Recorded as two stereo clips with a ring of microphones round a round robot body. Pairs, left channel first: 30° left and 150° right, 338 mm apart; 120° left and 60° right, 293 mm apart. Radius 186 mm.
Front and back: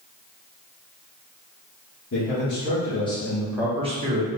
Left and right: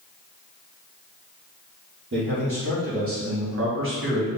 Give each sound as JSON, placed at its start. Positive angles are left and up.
{"t": 2.1, "sound": "a man speaking", "azimuth_deg": -15, "distance_m": 2.5}